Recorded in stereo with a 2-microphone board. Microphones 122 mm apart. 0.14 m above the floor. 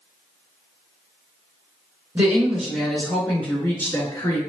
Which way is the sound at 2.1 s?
15° right (ahead or behind).